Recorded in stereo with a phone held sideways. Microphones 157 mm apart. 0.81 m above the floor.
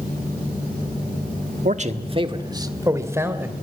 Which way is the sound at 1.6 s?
55° right (ahead or behind).